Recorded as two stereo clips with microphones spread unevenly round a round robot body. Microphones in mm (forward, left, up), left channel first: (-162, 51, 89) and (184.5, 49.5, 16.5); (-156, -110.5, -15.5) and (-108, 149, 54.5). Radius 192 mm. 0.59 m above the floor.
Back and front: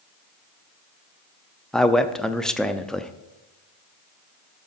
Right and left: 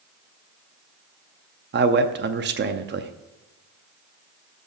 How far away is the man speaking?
About 0.7 m.